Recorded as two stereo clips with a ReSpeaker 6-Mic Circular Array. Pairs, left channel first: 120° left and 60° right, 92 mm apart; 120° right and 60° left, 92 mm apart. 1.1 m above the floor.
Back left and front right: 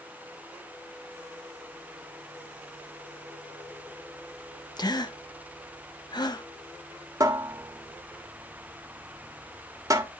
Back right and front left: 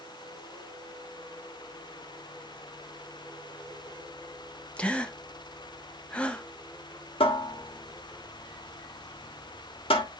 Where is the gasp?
160° left, 0.9 m.